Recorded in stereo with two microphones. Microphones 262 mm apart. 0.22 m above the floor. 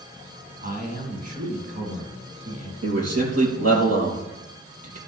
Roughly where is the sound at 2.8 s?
Right.